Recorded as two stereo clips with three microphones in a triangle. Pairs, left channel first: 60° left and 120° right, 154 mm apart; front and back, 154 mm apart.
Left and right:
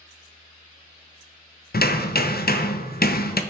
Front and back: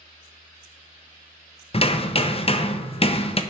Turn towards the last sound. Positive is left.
turn(degrees=55)